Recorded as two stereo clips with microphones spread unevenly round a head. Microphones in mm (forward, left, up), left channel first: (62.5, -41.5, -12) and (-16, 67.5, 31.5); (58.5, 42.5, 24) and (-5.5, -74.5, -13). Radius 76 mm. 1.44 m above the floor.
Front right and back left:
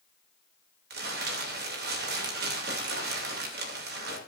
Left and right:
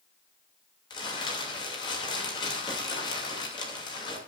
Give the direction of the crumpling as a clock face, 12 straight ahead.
8 o'clock.